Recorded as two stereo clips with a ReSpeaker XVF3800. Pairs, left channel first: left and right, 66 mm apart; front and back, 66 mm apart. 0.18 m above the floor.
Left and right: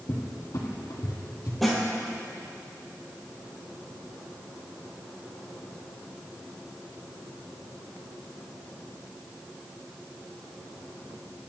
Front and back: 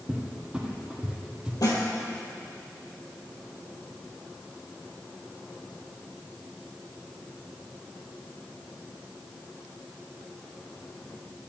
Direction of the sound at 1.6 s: Straight ahead.